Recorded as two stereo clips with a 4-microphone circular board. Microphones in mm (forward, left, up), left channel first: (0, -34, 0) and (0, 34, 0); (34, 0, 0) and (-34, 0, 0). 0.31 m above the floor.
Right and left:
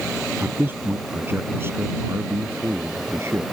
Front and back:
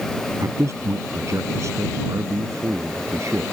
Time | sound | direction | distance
0.4 | a man speaking | 150° left | ?